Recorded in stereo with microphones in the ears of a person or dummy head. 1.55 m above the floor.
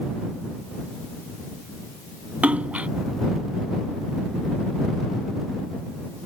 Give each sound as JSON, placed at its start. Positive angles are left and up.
{"t": 2.4, "sound": "a splash", "side_deg": -10}